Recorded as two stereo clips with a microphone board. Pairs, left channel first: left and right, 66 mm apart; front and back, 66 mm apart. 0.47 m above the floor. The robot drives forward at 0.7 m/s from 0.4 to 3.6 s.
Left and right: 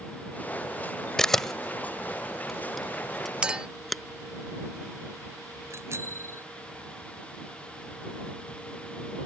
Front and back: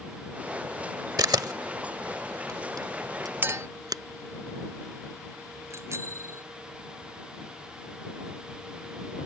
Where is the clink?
150° right; by 3.7 s 160° right.